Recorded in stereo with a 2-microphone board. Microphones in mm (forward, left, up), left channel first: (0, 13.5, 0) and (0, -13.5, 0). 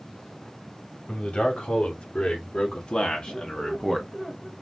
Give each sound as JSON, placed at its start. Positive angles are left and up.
{"t": 1.1, "sound": "a man speaking", "side_deg": 50, "distance_m": 3.0}
{"t": 3.3, "sound": "a squeak", "side_deg": 15, "distance_m": 2.0}